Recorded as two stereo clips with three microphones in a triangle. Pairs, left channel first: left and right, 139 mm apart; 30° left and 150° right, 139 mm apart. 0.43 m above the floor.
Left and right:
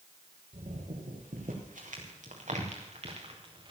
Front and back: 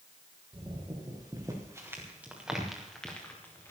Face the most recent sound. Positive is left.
turn(degrees=-40)